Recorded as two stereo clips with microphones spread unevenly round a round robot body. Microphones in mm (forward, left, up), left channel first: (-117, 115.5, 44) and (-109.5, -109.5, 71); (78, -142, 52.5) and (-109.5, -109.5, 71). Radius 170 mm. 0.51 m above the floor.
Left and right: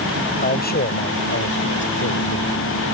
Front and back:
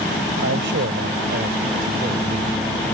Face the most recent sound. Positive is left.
turn(degrees=105)